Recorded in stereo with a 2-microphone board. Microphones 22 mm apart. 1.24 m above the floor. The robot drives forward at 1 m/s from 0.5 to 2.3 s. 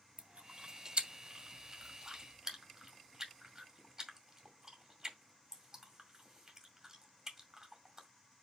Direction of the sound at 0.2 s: 65° right (ahead or behind).